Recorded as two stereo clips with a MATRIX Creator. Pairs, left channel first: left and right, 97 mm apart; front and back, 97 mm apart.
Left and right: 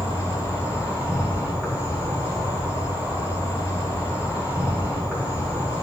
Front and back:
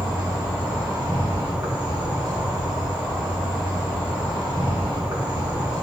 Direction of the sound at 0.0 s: 155° right.